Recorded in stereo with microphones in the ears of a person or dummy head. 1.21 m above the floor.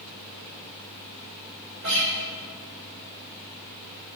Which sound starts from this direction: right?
A guitar, at 1.8 s.